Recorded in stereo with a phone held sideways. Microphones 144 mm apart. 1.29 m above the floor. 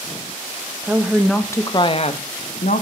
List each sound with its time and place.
0.8 s a woman speaking: 15° right (ahead or behind), 0.8 m; by 2.8 s 65° left (ahead or behind), 1.1 m